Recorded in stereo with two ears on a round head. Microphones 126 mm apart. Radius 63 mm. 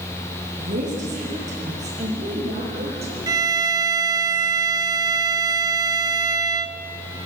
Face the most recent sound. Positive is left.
turn(degrees=-30)  # may be behind; listen again after turning